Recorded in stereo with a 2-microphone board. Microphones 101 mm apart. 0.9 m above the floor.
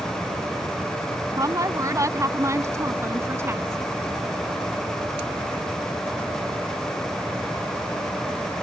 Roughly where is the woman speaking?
Right.